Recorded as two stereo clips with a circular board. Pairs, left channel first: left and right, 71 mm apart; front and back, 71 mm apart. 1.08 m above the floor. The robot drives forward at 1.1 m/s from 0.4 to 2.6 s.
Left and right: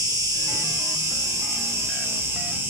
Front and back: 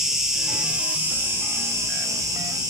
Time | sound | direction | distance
0.0 | an insect | 100° right | 2.5 m